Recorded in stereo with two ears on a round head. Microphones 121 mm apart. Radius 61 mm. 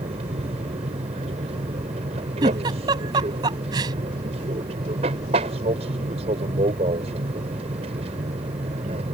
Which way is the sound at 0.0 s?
45° right (ahead or behind).